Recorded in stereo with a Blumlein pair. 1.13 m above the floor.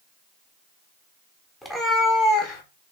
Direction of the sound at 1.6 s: 10° left.